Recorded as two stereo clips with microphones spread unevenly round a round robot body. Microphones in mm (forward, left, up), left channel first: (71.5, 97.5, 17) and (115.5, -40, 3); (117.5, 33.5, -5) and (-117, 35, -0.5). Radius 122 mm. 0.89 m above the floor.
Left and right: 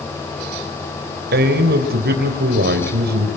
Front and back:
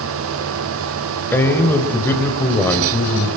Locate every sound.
1.3 s a man speaking: 85° right, 3 m